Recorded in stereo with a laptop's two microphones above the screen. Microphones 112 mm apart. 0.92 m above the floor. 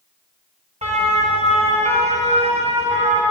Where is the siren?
75° right (ahead or behind), 4.5 m.